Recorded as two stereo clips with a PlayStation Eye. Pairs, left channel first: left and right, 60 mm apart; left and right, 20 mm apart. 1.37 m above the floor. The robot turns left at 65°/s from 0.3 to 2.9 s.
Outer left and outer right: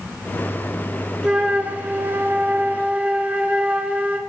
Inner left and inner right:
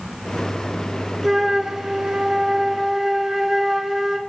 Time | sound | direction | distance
1.2 | a flute | 25° right | 0.7 m